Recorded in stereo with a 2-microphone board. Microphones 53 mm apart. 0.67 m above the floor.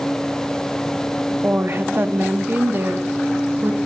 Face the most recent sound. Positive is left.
turn(degrees=-40)  # may be behind; listen again after turning